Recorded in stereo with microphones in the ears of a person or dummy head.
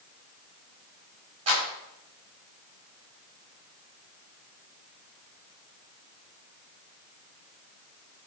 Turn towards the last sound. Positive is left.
turn(degrees=-30)  # may be behind; listen again after turning